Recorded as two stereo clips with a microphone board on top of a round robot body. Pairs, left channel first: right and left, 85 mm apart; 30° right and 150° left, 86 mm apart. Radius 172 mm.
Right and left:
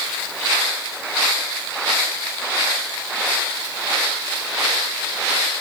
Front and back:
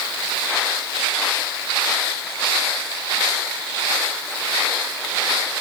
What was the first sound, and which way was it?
Only background noise.